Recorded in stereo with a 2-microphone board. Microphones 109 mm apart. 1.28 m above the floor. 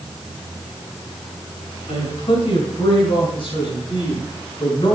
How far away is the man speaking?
About 6.5 m.